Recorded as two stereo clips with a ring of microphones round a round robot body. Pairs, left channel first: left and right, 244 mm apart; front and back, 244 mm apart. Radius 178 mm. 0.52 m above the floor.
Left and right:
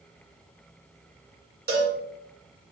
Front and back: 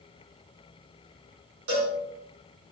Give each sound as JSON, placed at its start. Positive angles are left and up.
{"t": 1.7, "sound": "a cowbell", "azimuth_deg": -145, "distance_m": 1.1}